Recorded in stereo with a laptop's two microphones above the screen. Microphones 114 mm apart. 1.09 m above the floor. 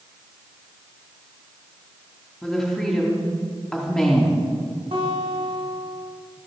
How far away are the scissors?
I don't hear scissors.